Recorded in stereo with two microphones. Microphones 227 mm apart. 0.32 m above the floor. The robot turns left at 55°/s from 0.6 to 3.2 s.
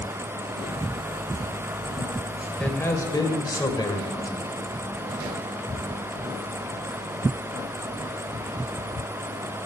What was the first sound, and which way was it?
A man speaking, 5° left (ahead or behind).